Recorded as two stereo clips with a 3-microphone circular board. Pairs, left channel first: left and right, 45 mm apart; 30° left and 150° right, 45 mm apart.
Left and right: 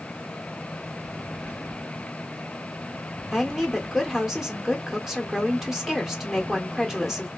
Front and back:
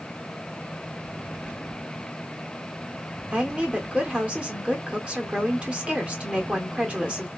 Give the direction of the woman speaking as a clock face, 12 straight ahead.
6 o'clock.